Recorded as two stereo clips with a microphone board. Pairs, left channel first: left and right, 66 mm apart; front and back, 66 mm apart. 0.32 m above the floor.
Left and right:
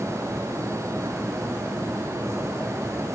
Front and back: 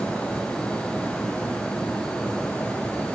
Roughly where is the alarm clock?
I don't hear an alarm clock.